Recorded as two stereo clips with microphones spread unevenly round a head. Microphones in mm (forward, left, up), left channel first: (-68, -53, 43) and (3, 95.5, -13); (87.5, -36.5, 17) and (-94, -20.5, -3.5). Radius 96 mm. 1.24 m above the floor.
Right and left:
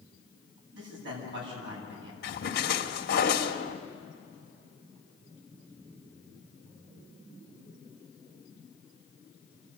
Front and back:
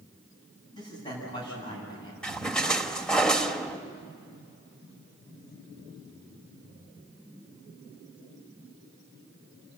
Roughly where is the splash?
Right.